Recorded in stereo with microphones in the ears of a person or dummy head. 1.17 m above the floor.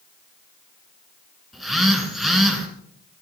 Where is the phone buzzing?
Centre (ahead or behind), 3 m.